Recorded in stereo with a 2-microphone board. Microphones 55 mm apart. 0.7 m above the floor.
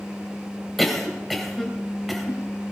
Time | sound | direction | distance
0.8 | a cough | centre (ahead or behind) | 3 m